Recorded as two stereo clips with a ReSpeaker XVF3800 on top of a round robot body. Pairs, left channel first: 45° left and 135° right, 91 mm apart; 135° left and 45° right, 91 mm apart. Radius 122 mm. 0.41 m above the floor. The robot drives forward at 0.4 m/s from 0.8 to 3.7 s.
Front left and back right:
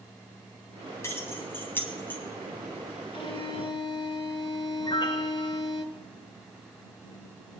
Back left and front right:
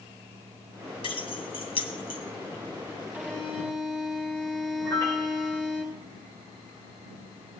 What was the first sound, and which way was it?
Keys jangling, 105° left.